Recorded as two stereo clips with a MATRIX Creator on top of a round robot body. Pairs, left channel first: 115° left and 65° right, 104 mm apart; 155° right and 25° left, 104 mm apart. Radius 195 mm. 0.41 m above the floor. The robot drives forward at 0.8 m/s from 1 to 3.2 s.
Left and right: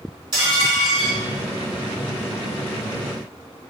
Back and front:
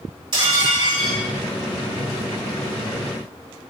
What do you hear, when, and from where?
0.3 s dishes clattering: 20° right, 4.5 m; by 1.2 s 25° right, 4 m